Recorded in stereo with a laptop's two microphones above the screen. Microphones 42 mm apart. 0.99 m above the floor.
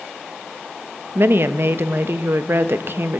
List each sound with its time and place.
1.1 s a woman speaking: 55° right (ahead or behind), 0.7 m